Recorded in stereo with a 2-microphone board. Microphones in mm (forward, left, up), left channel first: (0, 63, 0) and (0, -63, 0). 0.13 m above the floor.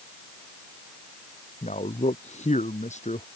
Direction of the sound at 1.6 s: 70° left (ahead or behind).